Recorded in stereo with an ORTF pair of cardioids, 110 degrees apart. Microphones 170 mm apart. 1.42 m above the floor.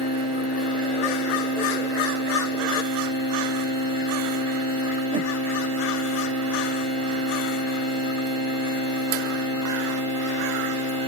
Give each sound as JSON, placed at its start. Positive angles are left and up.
{"t": 5.1, "sound": "a whoosh", "azimuth_deg": -30, "distance_m": 0.5}